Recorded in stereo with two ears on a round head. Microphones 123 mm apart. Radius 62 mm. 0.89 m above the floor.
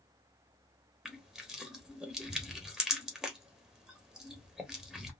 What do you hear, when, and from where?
1.1 s crushing: 5° right (ahead or behind), 1.1 m